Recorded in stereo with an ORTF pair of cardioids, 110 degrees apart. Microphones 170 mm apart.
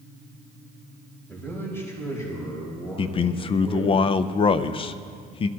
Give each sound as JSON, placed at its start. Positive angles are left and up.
{"t": 1.3, "sound": "a man speaking", "azimuth_deg": 10, "distance_m": 5.0}
{"t": 3.0, "sound": "a man speaking", "azimuth_deg": 35, "distance_m": 0.6}